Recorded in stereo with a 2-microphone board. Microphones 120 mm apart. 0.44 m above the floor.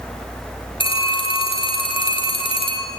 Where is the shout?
No shout in this recording.